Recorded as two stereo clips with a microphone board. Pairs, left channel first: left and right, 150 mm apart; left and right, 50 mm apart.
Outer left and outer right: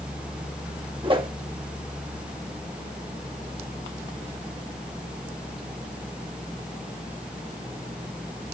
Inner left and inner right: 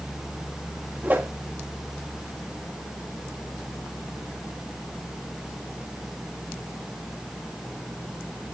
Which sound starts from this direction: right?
A whoosh, at 1.0 s.